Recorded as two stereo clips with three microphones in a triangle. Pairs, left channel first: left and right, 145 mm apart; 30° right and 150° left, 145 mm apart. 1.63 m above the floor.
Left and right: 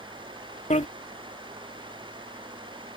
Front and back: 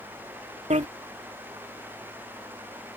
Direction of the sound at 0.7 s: 120° left.